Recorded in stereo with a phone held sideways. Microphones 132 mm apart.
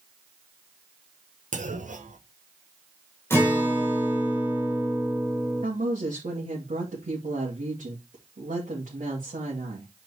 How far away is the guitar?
About 3.5 m.